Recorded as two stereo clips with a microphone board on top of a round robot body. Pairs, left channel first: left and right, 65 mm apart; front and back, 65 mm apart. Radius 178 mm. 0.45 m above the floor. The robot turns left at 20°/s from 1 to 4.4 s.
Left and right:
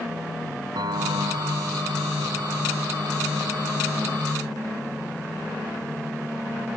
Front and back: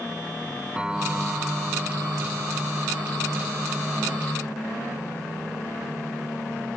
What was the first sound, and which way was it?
A piano, 105° right.